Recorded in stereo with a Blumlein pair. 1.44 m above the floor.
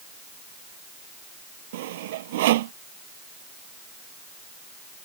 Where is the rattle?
No rattle in this recording.